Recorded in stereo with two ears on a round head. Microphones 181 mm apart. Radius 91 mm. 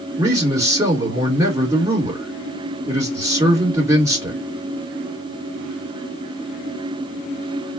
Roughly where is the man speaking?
Centre.